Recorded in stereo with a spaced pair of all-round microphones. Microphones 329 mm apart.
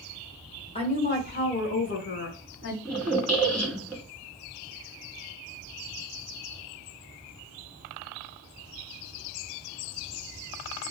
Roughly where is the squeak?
Centre.